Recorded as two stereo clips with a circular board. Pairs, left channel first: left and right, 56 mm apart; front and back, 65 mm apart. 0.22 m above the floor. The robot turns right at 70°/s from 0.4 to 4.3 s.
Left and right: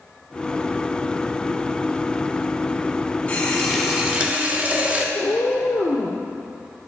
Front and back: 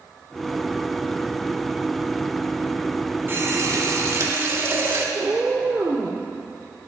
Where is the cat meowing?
110° left, 1.2 m.